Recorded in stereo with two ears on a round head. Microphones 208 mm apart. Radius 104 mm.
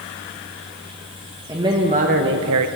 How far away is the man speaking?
About 1.3 m.